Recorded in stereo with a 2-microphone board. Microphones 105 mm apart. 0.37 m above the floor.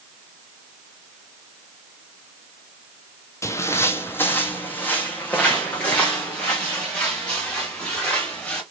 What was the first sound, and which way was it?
Footsteps, 25° left (ahead or behind).